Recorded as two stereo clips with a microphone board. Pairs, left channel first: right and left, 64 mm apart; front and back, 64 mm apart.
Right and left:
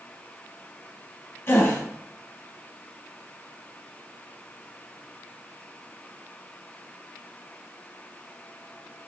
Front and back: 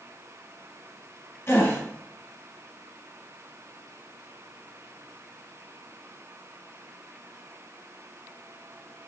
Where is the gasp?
50° right, 0.9 m.